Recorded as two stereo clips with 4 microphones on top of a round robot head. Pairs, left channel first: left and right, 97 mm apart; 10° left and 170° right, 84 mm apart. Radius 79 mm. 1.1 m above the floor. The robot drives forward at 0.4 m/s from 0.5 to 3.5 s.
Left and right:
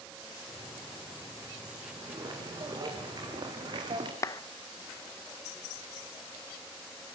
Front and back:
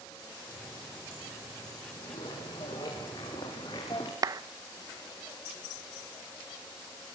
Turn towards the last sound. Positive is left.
turn(degrees=145)